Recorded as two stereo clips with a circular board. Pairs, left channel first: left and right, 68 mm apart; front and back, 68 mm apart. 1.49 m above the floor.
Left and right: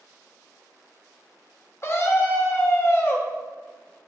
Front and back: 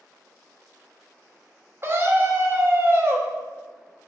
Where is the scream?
135° left, 0.6 m.